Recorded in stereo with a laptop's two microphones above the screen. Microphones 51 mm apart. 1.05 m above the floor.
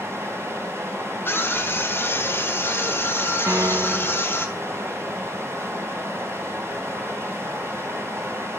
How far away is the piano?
About 0.6 m.